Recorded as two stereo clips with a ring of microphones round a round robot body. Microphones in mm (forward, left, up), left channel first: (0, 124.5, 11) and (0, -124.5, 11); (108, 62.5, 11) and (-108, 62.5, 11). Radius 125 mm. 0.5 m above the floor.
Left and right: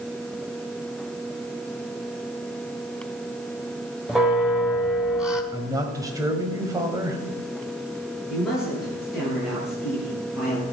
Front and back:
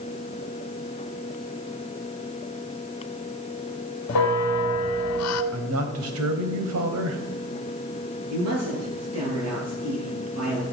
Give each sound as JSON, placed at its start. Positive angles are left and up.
{"t": 4.1, "sound": "a bell", "azimuth_deg": 0, "distance_m": 1.3}
{"t": 5.5, "sound": "a man speaking", "azimuth_deg": -165, "distance_m": 2.0}
{"t": 8.3, "sound": "a man speaking", "azimuth_deg": 180, "distance_m": 10.0}